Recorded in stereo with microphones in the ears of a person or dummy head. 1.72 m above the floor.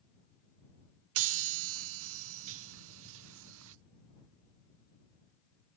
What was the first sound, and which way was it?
A chime, 75° right (ahead or behind).